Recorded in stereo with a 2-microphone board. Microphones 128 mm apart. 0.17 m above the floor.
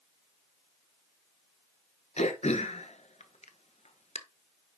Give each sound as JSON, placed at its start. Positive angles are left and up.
{"t": 2.2, "sound": "throat clearing", "side_deg": 55, "distance_m": 0.9}